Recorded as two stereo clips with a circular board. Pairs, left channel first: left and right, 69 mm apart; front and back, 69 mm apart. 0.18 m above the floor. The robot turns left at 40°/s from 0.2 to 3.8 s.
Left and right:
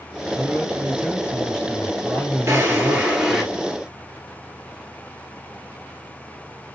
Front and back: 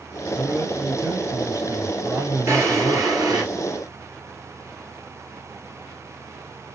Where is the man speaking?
125° right, 4.5 m; by 3.5 s 110° left, 4.5 m.